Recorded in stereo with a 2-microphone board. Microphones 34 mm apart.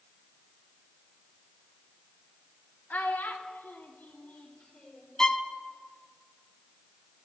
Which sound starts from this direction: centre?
A violin, at 5.2 s.